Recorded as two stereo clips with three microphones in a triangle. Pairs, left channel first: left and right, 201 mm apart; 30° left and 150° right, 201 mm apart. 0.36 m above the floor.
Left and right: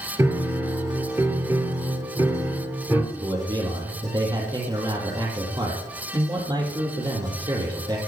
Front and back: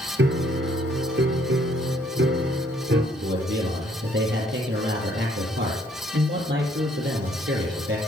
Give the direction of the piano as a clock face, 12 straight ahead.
6 o'clock.